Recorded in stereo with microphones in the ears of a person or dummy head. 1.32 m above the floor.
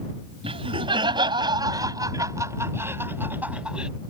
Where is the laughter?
30° right (ahead or behind); by 3.9 s 5° right (ahead or behind).